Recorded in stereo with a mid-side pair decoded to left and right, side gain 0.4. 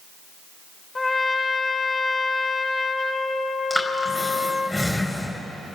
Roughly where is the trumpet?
Ahead left.